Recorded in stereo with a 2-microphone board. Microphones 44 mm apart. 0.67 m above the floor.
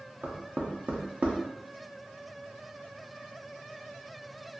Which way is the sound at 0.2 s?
35° right (ahead or behind).